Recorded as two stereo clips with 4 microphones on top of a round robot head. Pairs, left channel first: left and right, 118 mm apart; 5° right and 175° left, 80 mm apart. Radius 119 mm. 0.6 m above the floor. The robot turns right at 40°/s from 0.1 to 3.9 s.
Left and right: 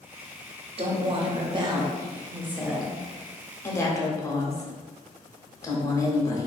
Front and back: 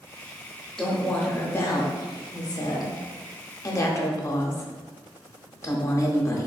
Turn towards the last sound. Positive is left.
turn(degrees=35)